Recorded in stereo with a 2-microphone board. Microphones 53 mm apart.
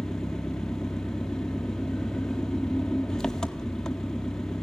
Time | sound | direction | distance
0.0 | an engine running | 15° left (ahead or behind) | 0.8 m